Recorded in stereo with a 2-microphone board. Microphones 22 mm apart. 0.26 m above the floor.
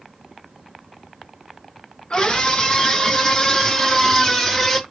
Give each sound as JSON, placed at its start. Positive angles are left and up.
{"t": 2.1, "sound": "a scream", "side_deg": 40, "distance_m": 4.0}